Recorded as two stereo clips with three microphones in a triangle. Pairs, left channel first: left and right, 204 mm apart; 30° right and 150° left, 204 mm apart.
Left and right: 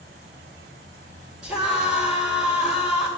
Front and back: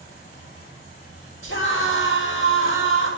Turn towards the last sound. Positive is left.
turn(degrees=-5)